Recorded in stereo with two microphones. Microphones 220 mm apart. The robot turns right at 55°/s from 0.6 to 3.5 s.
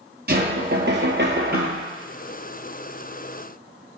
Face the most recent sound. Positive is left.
turn(degrees=45)